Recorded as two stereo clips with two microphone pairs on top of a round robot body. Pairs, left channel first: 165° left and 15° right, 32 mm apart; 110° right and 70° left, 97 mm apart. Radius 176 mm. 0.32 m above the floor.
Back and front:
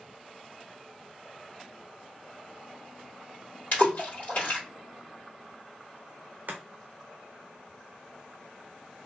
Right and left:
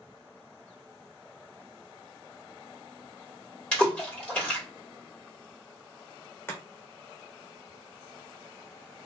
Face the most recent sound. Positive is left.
turn(degrees=-40)